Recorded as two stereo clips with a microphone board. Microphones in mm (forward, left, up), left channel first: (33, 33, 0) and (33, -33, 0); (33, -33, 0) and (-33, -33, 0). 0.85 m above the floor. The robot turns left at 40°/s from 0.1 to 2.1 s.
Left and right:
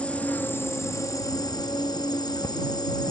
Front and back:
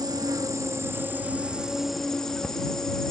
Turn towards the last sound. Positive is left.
turn(degrees=80)